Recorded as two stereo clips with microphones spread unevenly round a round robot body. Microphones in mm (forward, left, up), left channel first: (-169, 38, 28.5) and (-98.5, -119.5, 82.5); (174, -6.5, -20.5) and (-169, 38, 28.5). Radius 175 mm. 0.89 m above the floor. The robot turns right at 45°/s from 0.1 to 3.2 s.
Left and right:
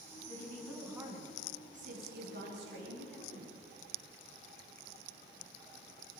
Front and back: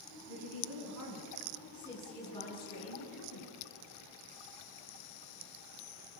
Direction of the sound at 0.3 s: 175° right.